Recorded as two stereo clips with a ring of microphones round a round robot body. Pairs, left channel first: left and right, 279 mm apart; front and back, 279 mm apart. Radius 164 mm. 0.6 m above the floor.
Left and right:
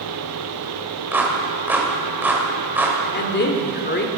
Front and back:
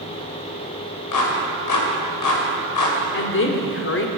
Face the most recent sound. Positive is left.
turn(degrees=40)